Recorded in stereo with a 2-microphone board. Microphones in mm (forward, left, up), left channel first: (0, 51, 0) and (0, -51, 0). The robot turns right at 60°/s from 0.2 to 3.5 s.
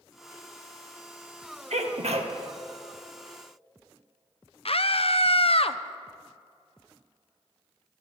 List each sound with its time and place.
1.7 s a sneeze: 100° right, 1.6 m; by 2.3 s 60° right, 1.6 m
4.7 s a scream: 60° left (ahead or behind), 0.7 m